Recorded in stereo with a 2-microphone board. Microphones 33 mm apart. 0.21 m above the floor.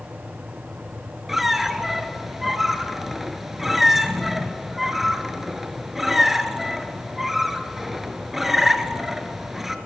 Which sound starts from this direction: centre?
A squeak, at 1.3 s.